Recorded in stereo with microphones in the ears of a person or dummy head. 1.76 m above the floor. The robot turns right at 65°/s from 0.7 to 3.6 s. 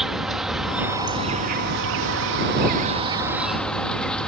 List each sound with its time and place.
0.0 s an insect: straight behind; by 4.3 s 10° left